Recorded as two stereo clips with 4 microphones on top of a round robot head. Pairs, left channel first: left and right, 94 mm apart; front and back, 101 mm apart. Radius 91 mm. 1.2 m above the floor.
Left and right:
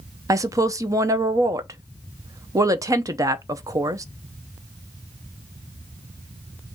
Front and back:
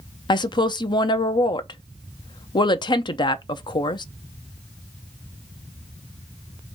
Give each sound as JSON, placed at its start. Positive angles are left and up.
{"t": 0.3, "sound": "a woman speaking", "azimuth_deg": -40, "distance_m": 0.6}